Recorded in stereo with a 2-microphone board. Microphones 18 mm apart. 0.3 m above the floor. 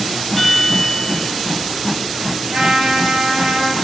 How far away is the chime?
About 0.7 m.